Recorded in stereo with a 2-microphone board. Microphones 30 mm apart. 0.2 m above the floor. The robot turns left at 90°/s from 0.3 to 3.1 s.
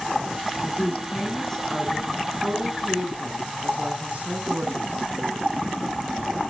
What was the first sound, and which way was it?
A woman speaking, 100° left.